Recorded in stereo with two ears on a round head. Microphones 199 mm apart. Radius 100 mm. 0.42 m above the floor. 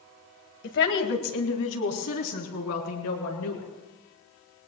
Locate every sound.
0.6 s a woman speaking: 55° left (ahead or behind), 2 m; by 3.7 s 80° left, 6 m